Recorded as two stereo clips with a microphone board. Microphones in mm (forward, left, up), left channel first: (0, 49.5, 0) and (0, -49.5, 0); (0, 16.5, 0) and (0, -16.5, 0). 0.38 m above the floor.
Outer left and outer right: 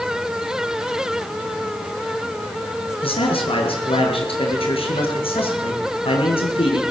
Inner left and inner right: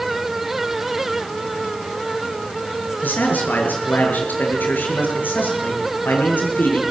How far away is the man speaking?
About 8 m.